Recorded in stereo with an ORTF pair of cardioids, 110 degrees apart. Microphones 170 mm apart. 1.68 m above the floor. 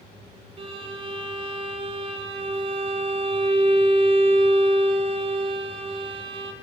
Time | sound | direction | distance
0.6 | a violin | 35° right | 4.5 m